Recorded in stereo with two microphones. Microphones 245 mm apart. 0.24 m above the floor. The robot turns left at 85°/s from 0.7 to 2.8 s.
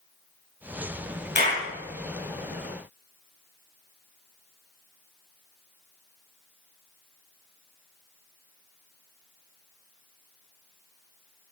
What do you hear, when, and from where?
1.4 s a clap: 45° left (ahead or behind), 3.5 m; by 1.6 s 20° left (ahead or behind), 3.5 m